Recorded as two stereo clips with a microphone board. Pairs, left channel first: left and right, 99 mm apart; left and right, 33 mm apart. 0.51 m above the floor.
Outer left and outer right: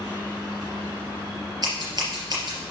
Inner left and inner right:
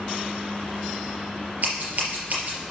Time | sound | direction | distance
1.6 | scissors | 45° right (ahead or behind) | 4 m